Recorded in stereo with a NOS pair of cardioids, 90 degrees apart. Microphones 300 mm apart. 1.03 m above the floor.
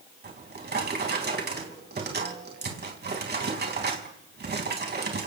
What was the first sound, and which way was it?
A drawer, 35° right.